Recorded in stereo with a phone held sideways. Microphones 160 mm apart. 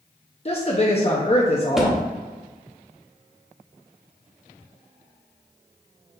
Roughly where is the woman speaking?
Left.